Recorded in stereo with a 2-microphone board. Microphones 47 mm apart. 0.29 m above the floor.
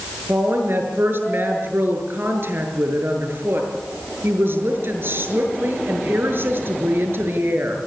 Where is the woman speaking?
55° right (ahead or behind), 6 m.